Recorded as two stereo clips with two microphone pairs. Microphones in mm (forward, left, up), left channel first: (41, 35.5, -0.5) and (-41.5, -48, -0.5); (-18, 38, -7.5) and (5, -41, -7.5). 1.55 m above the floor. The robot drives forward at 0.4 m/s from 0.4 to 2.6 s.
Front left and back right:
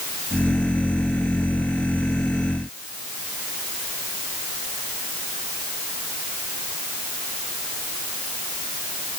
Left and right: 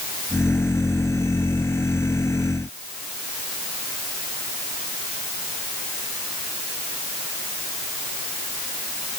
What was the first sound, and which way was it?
Only background noise.